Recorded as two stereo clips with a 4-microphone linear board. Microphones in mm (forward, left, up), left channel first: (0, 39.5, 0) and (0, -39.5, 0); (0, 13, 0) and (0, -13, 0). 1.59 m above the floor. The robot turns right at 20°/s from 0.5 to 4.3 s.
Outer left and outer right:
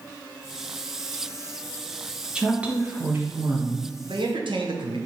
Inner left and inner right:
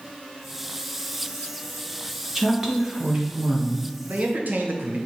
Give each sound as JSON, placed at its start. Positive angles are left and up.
{"t": 2.4, "sound": "a woman speaking", "azimuth_deg": -170, "distance_m": 1.4}
{"t": 4.0, "sound": "a man speaking", "side_deg": -85, "distance_m": 1.1}